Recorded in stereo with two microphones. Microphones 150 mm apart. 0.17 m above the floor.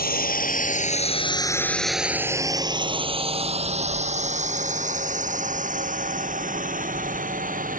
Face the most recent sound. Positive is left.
turn(degrees=-60)  # may be behind; listen again after turning